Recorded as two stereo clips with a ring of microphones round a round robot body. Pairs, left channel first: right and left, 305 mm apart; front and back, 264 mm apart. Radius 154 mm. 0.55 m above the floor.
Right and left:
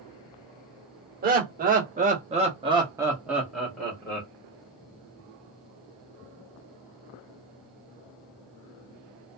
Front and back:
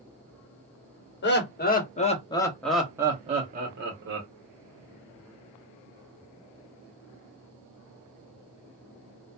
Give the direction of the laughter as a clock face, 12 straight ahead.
11 o'clock.